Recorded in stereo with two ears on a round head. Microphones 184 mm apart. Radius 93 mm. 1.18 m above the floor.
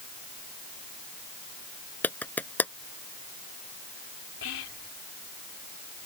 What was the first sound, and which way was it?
A clap, 10° left (ahead or behind).